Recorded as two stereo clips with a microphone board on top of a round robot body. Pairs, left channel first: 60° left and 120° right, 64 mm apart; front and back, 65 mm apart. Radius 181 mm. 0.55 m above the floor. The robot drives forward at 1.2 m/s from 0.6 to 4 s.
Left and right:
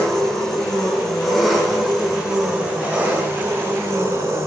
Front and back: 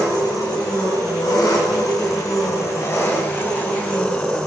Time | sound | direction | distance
0.0 | an engine running | 30° right | 5 m